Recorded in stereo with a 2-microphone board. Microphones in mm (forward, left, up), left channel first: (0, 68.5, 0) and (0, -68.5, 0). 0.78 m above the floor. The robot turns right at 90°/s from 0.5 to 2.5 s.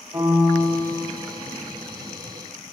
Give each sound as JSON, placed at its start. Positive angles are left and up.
{"t": 0.1, "sound": "a piano", "azimuth_deg": -155, "distance_m": 4.0}